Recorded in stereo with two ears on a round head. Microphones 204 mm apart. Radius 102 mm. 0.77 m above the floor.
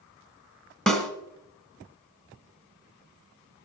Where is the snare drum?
Centre (ahead or behind), 1.4 m.